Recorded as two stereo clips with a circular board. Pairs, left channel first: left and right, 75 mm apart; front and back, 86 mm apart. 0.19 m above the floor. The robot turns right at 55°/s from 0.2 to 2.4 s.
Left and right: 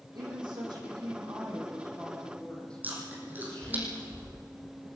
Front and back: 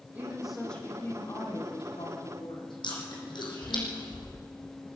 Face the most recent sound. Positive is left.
turn(degrees=-25)